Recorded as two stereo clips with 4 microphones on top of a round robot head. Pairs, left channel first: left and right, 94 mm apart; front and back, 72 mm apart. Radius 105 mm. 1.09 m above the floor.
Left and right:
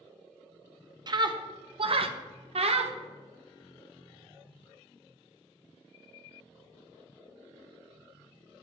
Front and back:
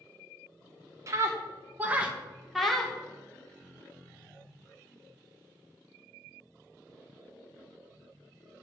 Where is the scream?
135° right, 1.5 m; by 3.0 s 85° right, 1.5 m.